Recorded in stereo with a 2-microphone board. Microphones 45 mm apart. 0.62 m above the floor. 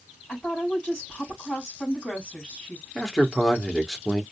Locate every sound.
0.3 s a woman speaking: 30° left (ahead or behind), 3 m
3.0 s a man speaking: 10° left (ahead or behind), 1.2 m